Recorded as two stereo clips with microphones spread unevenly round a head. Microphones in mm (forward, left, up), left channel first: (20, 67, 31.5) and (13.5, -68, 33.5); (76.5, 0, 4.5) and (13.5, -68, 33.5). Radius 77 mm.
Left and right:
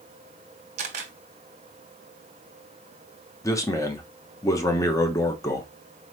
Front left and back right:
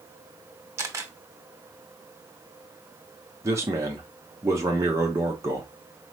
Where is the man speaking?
155° left, 1.0 m.